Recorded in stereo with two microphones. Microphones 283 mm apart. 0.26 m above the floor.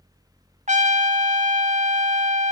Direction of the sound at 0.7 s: 25° right (ahead or behind).